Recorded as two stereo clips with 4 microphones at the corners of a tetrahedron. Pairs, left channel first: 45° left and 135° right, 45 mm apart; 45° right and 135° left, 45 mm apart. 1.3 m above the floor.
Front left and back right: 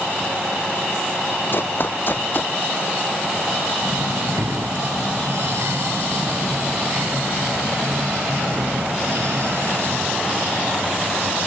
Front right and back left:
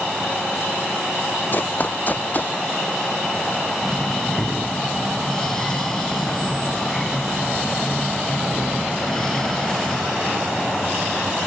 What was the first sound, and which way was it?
Running footsteps, 5° left.